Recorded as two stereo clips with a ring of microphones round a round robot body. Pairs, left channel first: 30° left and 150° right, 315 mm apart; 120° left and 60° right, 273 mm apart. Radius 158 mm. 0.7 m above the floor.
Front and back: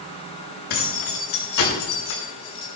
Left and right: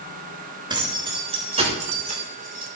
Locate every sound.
0.7 s keys jangling: 15° left, 7 m; by 2.7 s 5° right, 5 m